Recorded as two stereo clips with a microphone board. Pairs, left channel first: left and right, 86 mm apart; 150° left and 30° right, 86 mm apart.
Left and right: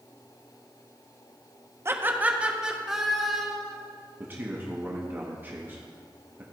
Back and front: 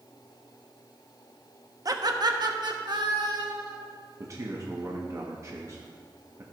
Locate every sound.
1.9 s laughter: 45° right, 0.7 m; by 3.8 s 5° left, 1.7 m
4.2 s a man speaking: 40° right, 1.0 m